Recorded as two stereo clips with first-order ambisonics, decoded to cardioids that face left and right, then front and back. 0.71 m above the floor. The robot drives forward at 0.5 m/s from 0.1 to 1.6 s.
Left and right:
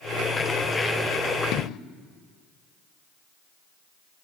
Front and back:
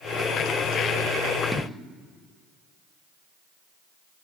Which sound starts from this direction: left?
An explosion, at 1.5 s.